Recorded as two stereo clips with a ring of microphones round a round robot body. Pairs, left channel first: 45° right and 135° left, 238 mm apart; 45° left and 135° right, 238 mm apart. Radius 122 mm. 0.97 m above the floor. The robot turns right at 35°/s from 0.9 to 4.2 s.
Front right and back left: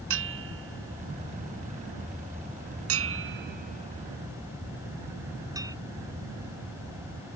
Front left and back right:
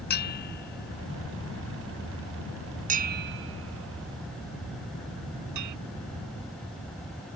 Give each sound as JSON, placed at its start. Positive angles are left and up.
{"t": 0.1, "sound": "a bell", "azimuth_deg": 95}